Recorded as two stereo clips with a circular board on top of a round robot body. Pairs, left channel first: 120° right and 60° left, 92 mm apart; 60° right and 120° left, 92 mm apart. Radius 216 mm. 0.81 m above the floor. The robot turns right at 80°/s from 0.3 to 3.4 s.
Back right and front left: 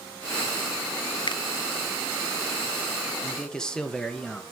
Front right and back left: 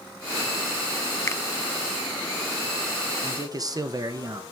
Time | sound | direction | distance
1.3 | a finger snap | 115° right | 0.8 m
3.2 | a man speaking | 145° left | 1.4 m